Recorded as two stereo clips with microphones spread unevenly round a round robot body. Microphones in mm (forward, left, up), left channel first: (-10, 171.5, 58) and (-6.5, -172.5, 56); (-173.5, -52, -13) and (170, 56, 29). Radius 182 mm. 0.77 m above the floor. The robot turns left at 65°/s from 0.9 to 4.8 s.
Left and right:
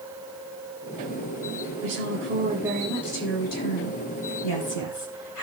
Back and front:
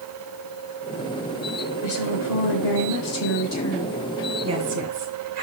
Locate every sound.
1.8 s a woman speaking: 115° right, 4.5 m; by 5.4 s 50° left, 4.5 m